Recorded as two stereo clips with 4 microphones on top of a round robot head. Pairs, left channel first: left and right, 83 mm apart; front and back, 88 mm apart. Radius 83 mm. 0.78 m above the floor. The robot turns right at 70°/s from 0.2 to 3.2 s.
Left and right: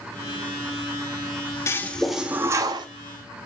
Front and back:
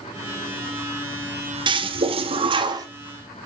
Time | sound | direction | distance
1.7 | a toilet flushing | 150° left | 0.8 m